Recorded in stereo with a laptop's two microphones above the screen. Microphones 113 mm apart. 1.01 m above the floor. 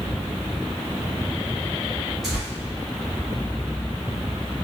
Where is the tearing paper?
Centre (ahead or behind), 2 m.